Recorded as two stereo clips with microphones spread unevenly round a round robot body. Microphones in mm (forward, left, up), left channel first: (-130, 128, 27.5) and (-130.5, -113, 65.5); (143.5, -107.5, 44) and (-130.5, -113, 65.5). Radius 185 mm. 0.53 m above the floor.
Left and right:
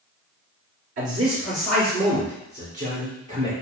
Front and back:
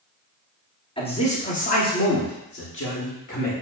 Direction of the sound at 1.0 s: 65° right.